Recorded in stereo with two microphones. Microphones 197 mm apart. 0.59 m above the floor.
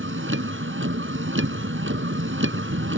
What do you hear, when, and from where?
0.0 s a vehicle: 80° right